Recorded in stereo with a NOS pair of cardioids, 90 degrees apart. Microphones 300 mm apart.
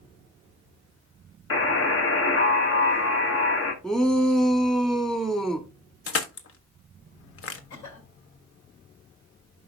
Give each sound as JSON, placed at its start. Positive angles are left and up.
{"t": 1.5, "sound": "a buzzer", "azimuth_deg": 45, "distance_m": 1.4}
{"t": 3.8, "sound": "a shout", "azimuth_deg": 0, "distance_m": 1.5}
{"t": 6.1, "sound": "crushing", "azimuth_deg": 45, "distance_m": 1.1}
{"t": 7.7, "sound": "a cough", "azimuth_deg": 65, "distance_m": 5.0}